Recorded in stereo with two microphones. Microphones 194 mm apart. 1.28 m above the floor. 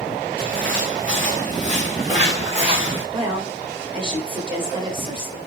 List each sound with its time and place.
0.4 s footsteps: 50° right (ahead or behind), 3 m; by 3.0 s 25° right (ahead or behind), 3.5 m
3.1 s a woman speaking: 25° right (ahead or behind), 3 m